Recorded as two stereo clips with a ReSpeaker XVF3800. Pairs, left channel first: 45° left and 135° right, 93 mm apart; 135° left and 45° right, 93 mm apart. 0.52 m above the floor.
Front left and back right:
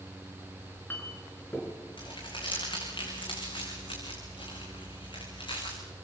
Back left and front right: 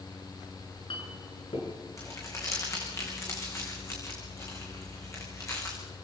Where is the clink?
110° left, 5 m.